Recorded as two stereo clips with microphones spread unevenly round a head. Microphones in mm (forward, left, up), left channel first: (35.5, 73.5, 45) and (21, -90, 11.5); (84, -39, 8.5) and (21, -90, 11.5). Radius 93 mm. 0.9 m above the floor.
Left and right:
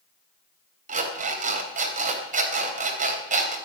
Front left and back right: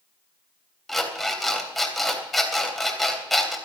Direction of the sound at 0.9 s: 50° right.